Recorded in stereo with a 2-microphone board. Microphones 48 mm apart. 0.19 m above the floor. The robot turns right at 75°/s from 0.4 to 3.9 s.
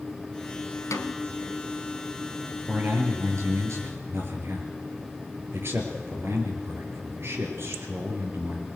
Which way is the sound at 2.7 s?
150° right.